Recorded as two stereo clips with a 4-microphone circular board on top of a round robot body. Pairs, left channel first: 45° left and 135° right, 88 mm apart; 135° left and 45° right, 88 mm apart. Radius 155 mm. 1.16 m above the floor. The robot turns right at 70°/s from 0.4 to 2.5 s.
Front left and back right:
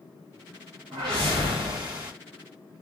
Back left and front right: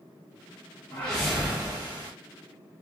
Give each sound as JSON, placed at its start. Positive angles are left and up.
{"t": 0.9, "sound": "a whoosh", "azimuth_deg": -160, "distance_m": 1.2}